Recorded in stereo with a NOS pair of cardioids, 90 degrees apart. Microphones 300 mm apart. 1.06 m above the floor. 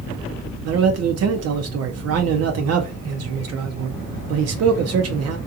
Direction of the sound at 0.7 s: 60° right.